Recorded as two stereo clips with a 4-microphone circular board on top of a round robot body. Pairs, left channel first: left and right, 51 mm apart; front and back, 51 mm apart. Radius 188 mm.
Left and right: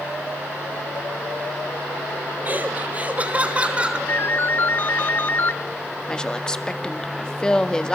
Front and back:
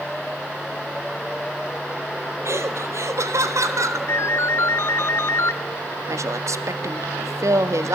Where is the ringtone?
40° left, 1.1 m.